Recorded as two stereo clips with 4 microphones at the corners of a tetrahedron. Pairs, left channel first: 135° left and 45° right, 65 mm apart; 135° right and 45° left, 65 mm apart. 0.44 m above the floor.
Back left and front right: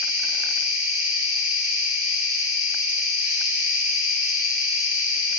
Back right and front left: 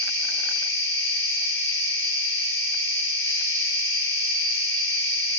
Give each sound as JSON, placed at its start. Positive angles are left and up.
{"t": 0.0, "sound": "an insect", "azimuth_deg": -105, "distance_m": 1.5}